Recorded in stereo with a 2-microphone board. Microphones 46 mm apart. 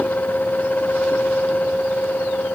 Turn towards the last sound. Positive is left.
No sound to turn to.